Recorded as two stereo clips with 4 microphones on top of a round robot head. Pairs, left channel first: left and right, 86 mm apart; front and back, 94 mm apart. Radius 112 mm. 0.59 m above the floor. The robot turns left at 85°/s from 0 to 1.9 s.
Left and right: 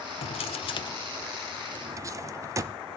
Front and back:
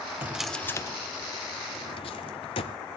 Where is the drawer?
110° left, 0.5 m; by 2.8 s 35° right, 0.5 m.